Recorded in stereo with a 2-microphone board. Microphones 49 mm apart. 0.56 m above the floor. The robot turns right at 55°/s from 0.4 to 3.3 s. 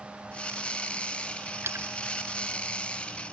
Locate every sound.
1.6 s a splash: 55° right (ahead or behind); by 1.9 s 65° right (ahead or behind)